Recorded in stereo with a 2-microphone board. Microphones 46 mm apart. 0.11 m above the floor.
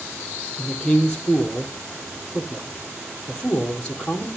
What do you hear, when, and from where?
0.6 s a man speaking: 15° left (ahead or behind), 2.5 m